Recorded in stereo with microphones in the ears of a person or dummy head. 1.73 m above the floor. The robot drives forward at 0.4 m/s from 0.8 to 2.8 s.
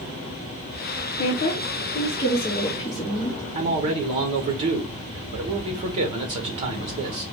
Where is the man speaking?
30° right (ahead or behind), 1.1 m.